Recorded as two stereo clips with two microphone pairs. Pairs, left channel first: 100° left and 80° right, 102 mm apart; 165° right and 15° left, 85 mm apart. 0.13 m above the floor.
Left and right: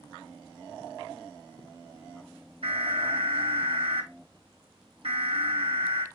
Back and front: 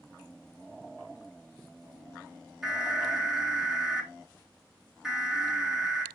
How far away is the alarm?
About 6 m.